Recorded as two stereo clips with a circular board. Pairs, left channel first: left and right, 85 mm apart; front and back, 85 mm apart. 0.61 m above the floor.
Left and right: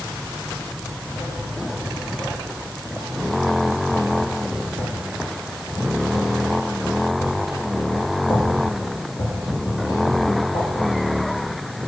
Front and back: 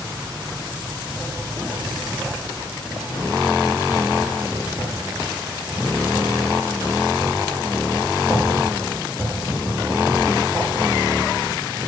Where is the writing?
100° left, 6.5 m.